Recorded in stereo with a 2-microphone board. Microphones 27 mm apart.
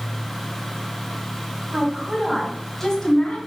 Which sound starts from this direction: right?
A woman speaking, at 1.7 s.